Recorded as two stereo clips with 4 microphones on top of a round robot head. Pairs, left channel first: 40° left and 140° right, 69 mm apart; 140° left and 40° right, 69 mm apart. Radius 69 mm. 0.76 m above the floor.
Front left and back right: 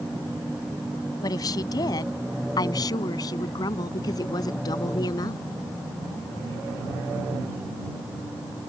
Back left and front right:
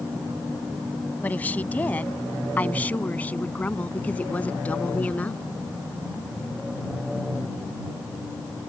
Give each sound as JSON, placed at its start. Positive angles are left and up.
{"t": 1.2, "sound": "a woman speaking", "azimuth_deg": 75}